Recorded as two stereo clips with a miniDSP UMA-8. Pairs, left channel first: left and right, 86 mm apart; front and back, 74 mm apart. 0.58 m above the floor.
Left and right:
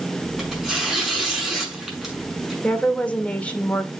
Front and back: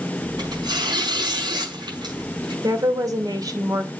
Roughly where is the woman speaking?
Behind.